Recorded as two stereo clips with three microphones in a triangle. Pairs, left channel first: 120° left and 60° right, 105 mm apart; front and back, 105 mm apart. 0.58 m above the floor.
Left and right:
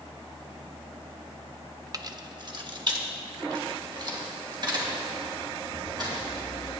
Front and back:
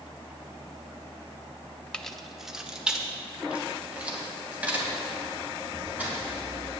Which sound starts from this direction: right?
Keys jangling, at 1.9 s.